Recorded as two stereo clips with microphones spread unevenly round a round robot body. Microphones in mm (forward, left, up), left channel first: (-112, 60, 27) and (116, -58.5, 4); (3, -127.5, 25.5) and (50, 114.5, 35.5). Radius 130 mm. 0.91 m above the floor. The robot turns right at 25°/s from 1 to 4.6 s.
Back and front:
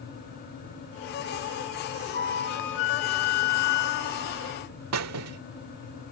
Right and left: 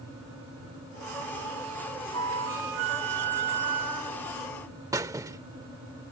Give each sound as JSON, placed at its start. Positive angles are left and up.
{"t": 2.1, "sound": "a flute", "azimuth_deg": 100}
{"t": 4.9, "sound": "a squeak", "azimuth_deg": 5}